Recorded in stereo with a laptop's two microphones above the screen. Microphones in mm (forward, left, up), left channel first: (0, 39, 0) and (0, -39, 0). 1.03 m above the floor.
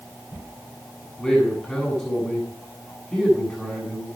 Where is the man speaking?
Centre (ahead or behind), 7 m.